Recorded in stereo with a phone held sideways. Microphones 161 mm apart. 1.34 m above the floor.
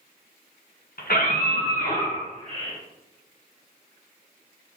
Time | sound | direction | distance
1.0 | a scream | 65° left (ahead or behind) | 1.3 m